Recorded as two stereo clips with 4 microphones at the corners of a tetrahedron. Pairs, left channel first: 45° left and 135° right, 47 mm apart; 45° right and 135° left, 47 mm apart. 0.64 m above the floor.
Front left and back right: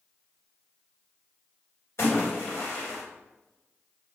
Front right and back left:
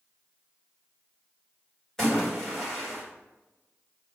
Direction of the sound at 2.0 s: 35° left.